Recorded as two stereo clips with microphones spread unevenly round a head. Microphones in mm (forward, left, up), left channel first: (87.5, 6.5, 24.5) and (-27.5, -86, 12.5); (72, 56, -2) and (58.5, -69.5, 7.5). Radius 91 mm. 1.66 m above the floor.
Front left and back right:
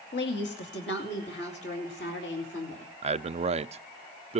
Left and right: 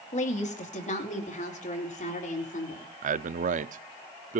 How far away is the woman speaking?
About 2.5 m.